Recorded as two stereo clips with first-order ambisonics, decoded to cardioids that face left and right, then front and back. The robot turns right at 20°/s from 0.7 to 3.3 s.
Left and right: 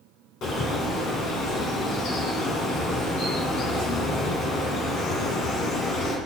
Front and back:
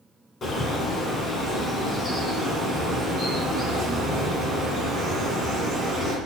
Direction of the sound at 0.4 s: 55° left.